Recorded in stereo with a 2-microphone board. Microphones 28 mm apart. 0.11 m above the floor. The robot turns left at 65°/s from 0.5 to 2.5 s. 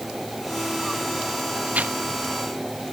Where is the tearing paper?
80° right; by 1.9 s 60° right (ahead or behind).